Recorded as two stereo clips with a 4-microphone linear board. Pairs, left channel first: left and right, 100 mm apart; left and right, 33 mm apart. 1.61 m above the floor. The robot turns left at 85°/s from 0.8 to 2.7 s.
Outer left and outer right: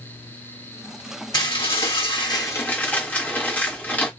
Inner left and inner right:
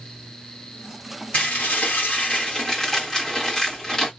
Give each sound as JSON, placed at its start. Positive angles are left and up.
{"t": 1.3, "sound": "dishes clattering", "azimuth_deg": 135, "distance_m": 1.5}